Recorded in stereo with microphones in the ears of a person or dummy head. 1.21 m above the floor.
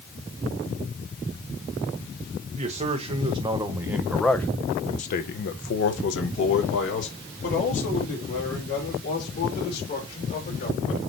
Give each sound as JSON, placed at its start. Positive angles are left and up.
{"t": 2.5, "sound": "a man speaking", "side_deg": -30, "distance_m": 1.4}